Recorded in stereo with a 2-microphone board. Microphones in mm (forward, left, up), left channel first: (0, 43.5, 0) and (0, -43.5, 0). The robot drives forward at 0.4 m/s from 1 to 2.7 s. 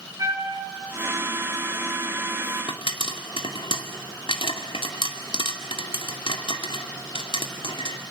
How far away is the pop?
About 2 m.